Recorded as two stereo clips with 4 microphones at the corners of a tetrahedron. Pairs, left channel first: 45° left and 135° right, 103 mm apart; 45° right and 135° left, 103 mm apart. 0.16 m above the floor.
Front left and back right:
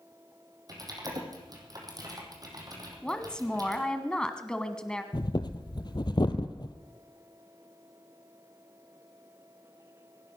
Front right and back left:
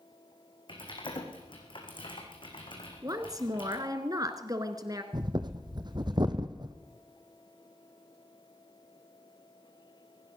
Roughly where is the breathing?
Left.